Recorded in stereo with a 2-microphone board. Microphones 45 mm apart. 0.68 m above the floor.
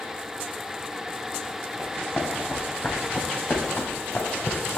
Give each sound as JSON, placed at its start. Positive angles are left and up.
{"t": 1.8, "sound": "running footsteps", "side_deg": 25, "distance_m": 3.5}